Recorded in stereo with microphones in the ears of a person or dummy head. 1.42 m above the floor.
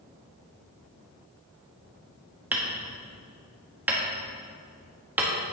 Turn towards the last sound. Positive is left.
turn(degrees=-10)  # may be behind; listen again after turning